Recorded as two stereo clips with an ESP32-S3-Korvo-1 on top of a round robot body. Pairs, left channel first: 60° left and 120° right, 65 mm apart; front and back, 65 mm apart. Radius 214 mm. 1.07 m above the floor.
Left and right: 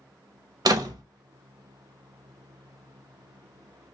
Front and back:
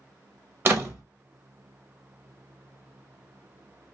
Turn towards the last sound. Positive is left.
turn(degrees=-125)